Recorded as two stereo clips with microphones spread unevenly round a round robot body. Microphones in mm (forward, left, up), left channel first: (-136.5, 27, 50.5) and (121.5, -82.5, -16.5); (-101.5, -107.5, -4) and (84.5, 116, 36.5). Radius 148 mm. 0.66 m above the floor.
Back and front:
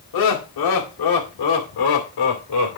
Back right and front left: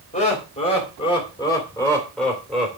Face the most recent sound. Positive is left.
turn(degrees=140)